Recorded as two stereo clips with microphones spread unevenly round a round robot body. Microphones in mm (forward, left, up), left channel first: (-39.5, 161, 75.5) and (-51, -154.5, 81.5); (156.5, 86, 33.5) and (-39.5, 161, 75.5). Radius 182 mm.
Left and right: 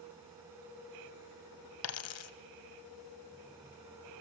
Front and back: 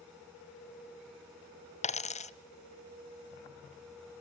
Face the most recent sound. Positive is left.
turn(degrees=40)